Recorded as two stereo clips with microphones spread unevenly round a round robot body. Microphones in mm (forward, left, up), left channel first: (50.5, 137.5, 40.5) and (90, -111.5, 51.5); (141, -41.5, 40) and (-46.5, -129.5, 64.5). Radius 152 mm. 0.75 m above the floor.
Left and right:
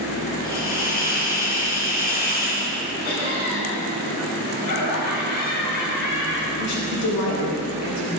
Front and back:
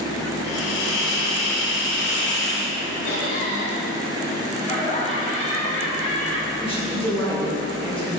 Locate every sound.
0.4 s a hiss: 45° left, 3.5 m
3.0 s laughter: 70° left, 6 m
4.6 s laughter: 95° left, 6.5 m
6.6 s a woman speaking: 105° left, 3 m